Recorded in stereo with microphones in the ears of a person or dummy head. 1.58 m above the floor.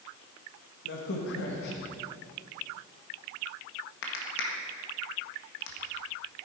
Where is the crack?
65° left (ahead or behind), 1.8 m.